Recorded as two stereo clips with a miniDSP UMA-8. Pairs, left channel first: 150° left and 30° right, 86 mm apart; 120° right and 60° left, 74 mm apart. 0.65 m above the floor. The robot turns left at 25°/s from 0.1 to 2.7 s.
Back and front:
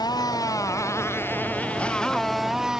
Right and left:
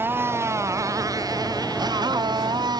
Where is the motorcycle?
120° left; by 2.8 s 55° left.